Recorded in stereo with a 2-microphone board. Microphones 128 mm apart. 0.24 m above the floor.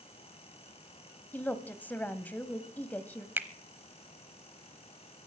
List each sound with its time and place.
1.3 s a woman speaking: 15° left (ahead or behind), 1.0 m
3.4 s a finger snap: 15° right (ahead or behind), 0.9 m